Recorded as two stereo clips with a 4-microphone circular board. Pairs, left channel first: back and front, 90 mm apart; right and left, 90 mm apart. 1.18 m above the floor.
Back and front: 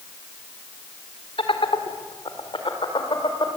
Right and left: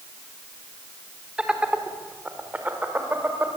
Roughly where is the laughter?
Behind.